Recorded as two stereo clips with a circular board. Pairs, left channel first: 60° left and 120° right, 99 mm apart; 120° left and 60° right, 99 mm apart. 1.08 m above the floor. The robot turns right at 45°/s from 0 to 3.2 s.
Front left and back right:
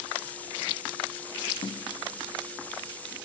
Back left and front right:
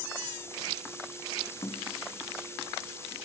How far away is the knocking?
About 0.7 m.